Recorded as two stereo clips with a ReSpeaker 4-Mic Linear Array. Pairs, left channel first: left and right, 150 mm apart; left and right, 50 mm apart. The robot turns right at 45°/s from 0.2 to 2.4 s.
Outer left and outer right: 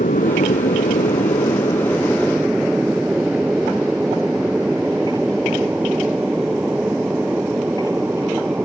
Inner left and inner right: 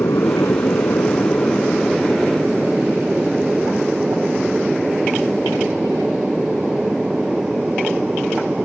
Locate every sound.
0.0 s an aircraft: 60° left (ahead or behind); by 8.7 s 10° right (ahead or behind)